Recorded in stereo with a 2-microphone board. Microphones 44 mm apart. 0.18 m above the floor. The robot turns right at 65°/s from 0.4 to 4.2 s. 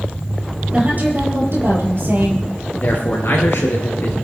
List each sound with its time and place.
0.7 s a woman speaking: 150° right, 4.5 m; by 2.5 s 40° right, 4.5 m
2.8 s a man speaking: 45° left, 3 m; by 4.1 s 130° left, 3 m